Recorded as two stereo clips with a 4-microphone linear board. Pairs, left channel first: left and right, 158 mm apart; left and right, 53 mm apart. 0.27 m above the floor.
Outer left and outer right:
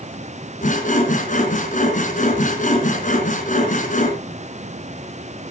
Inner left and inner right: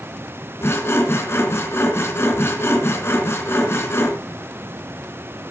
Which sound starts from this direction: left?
Sawing, at 0.6 s.